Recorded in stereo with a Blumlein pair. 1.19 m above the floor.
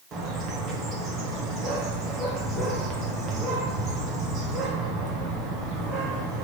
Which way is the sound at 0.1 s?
30° right.